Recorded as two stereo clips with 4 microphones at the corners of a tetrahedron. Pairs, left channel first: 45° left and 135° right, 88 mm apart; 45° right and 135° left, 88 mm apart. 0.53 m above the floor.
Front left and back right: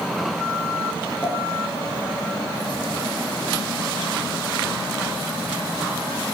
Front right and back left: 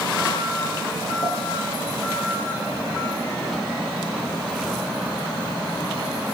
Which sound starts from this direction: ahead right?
A pop, at 1.2 s.